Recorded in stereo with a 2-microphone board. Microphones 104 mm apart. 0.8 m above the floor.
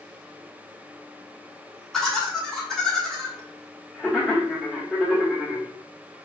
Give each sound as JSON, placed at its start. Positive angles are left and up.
{"t": 1.9, "sound": "laughter", "side_deg": 5, "distance_m": 1.0}